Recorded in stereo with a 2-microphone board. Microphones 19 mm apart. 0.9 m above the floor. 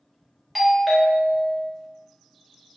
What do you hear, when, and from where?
0.6 s a doorbell: 5° right (ahead or behind), 0.8 m